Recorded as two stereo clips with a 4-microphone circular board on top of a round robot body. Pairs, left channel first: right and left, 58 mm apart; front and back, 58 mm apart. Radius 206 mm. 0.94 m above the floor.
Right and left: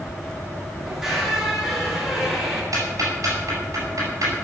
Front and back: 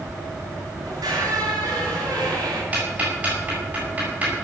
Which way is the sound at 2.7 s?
120° left.